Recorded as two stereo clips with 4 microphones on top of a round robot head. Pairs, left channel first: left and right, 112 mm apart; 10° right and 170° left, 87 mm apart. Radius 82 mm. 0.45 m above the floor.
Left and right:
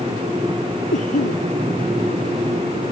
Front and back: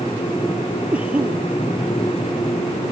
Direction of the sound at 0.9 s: 95° left.